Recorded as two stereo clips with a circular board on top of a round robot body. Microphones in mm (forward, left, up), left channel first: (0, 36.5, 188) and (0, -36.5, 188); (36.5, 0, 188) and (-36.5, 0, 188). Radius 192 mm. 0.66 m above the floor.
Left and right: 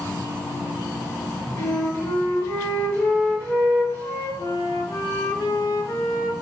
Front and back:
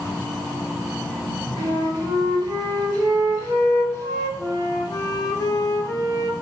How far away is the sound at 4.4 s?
About 0.8 m.